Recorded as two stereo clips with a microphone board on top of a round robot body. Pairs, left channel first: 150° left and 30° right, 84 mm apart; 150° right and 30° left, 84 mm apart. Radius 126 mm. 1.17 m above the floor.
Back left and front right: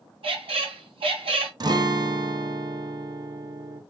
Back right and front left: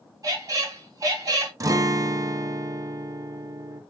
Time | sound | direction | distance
0.2 | a squeak | 25° right | 0.8 m
1.6 | a guitar | 10° right | 0.5 m